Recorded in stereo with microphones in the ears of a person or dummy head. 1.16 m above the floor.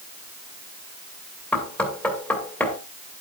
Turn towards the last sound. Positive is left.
turn(degrees=10)  # may be behind; listen again after turning